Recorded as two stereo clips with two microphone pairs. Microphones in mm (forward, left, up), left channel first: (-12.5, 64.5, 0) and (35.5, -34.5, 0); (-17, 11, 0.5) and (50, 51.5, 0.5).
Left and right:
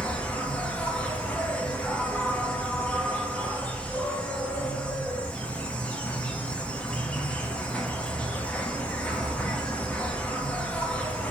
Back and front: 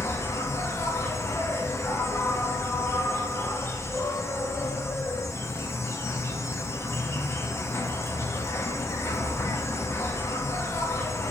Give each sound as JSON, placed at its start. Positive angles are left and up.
{"t": 0.0, "sound": "an insect", "azimuth_deg": -175, "distance_m": 0.8}